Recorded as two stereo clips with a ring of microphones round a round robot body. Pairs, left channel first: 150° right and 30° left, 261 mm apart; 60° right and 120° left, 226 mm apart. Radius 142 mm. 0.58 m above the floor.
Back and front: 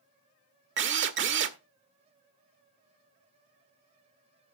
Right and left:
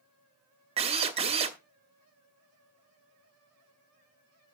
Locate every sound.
0.8 s a drill: 60° left, 1.0 m